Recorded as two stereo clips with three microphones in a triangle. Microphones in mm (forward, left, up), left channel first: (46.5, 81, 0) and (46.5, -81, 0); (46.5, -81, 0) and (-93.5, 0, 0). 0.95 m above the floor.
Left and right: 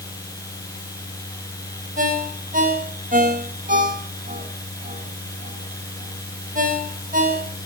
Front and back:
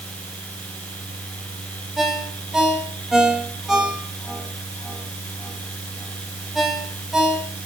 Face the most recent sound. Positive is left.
turn(degrees=-120)